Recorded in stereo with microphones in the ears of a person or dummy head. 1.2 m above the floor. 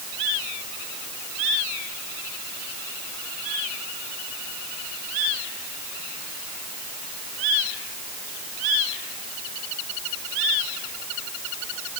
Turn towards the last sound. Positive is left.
No sound to turn to.